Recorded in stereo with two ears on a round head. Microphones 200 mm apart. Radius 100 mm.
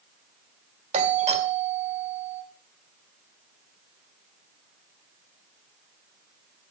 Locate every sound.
0.9 s a doorbell: 30° right (ahead or behind), 2 m